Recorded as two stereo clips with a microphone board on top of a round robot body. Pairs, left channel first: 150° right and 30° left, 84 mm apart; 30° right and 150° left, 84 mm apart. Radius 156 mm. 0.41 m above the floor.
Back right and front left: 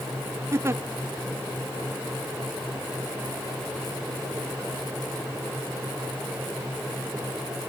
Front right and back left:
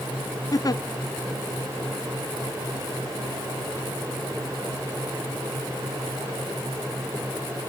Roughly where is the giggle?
Ahead.